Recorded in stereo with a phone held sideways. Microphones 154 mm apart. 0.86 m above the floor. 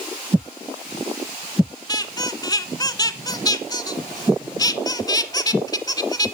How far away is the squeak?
About 0.8 m.